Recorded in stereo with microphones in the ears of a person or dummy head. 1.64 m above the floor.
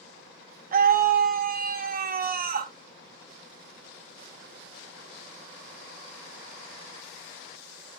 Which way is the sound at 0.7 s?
50° right (ahead or behind).